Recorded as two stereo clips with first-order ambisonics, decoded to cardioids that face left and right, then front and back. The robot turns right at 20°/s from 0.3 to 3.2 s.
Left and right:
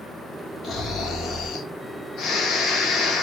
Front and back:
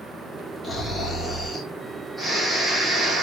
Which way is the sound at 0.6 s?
55° left.